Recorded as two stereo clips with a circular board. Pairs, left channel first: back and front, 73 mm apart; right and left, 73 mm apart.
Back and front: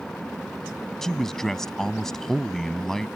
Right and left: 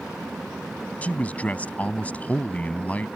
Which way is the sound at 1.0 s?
105° right.